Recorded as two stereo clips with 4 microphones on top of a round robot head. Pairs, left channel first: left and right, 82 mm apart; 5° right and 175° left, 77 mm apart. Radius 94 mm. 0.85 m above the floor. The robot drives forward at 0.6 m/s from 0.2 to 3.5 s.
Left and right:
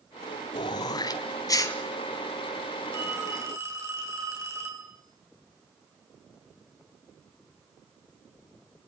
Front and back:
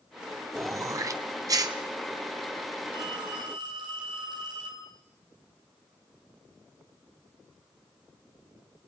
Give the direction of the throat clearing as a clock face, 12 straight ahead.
8 o'clock.